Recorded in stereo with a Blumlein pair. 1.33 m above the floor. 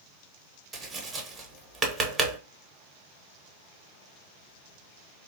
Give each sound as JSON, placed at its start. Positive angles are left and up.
{"t": 0.7, "sound": "tapping", "azimuth_deg": -15, "distance_m": 0.8}